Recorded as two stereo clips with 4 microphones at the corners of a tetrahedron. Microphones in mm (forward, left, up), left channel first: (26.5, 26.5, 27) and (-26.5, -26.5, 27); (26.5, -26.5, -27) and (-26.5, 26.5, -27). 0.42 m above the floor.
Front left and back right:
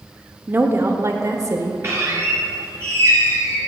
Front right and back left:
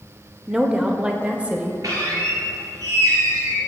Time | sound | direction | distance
0.5 | a woman speaking | 150° right | 0.8 m
1.8 | a squeak | 175° left | 3 m